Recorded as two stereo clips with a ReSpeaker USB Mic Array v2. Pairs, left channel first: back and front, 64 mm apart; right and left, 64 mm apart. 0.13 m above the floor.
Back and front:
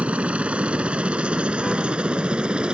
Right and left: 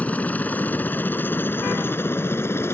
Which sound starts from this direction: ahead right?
A helicopter, at 0.0 s.